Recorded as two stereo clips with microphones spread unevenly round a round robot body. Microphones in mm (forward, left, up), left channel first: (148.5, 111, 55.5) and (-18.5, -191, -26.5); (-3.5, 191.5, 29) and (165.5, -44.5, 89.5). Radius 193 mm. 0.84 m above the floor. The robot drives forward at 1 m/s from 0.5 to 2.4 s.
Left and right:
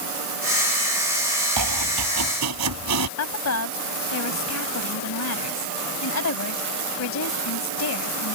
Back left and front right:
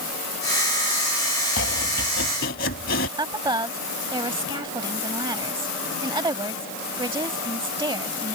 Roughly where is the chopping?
Behind.